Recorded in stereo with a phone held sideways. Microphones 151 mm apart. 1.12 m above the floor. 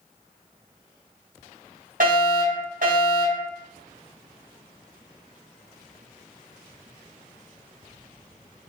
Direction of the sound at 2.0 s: 70° right (ahead or behind).